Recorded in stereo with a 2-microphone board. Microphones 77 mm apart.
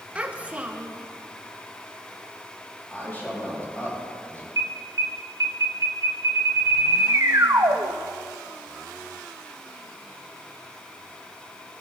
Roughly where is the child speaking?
Centre.